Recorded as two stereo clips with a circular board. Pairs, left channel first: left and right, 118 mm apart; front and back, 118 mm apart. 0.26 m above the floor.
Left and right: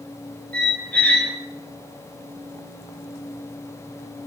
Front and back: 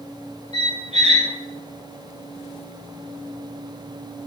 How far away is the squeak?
About 1.2 m.